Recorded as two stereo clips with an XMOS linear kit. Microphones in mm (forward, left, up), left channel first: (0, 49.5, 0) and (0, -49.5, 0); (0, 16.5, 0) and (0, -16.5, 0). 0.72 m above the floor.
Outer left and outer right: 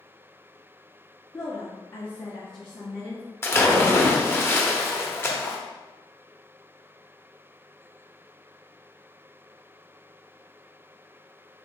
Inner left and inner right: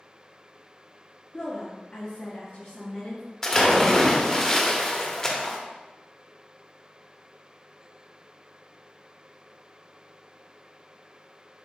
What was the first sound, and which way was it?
A woman speaking, 40° left (ahead or behind).